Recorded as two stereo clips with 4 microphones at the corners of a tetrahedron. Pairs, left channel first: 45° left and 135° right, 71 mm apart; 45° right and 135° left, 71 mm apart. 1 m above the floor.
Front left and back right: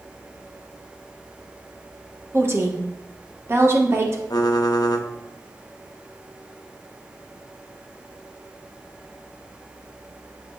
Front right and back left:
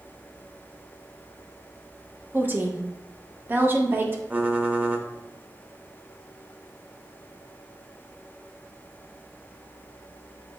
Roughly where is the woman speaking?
Behind.